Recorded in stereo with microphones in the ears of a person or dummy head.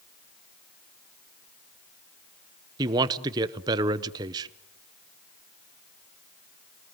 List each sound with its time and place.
2.8 s a man speaking: 20° right (ahead or behind), 0.9 m